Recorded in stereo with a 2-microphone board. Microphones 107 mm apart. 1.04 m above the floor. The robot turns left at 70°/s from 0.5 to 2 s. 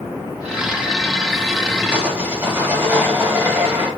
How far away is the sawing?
About 1.9 m.